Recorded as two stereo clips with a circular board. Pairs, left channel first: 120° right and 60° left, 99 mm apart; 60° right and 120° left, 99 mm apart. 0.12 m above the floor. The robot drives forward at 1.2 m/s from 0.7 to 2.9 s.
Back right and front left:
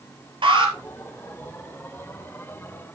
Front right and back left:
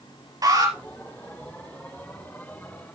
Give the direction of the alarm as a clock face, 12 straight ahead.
9 o'clock.